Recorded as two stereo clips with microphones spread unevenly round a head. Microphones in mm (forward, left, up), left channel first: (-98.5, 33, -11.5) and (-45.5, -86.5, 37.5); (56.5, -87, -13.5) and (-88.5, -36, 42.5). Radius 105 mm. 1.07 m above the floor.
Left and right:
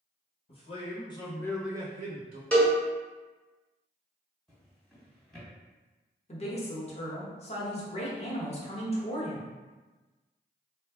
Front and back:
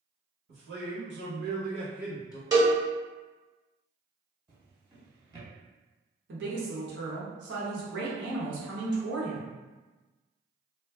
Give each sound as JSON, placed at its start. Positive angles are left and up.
{"t": 0.5, "sound": "a man speaking", "azimuth_deg": 155, "distance_m": 1.5}
{"t": 2.5, "sound": "a cowbell", "azimuth_deg": -150, "distance_m": 1.3}
{"t": 4.5, "sound": "a drawer", "azimuth_deg": -145, "distance_m": 1.5}
{"t": 6.3, "sound": "a woman speaking", "azimuth_deg": 150, "distance_m": 1.1}